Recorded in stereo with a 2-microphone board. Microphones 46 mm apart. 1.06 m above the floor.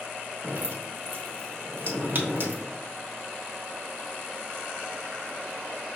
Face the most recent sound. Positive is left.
turn(degrees=-45)  # may be behind; listen again after turning